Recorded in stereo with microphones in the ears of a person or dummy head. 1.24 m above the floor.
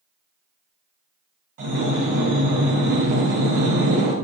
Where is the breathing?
45° right (ahead or behind), 0.8 m.